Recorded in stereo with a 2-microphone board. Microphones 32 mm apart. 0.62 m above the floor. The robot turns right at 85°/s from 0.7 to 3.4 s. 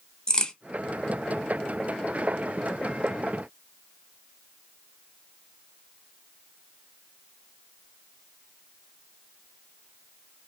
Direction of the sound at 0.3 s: 25° left (ahead or behind).